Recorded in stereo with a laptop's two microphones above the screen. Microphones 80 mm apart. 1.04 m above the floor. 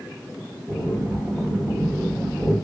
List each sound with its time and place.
0.7 s breathing: 20° right (ahead or behind), 3 m